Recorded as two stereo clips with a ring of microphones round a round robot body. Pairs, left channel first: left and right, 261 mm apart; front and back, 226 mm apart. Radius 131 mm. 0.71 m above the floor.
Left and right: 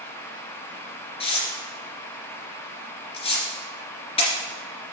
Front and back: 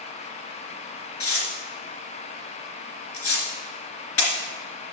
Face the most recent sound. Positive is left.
turn(degrees=20)